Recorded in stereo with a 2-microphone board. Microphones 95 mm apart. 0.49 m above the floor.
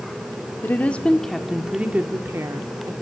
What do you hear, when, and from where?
0.6 s a woman speaking: 20° left (ahead or behind), 1.2 m; by 2.9 s 40° right (ahead or behind), 1.3 m